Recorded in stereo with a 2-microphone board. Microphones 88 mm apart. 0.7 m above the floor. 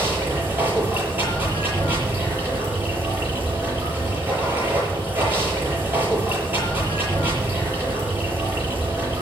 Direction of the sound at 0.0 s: 25° right (ahead or behind).